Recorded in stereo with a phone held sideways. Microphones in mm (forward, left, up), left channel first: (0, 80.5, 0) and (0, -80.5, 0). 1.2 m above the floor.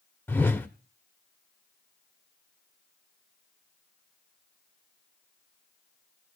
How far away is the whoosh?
About 1.0 m.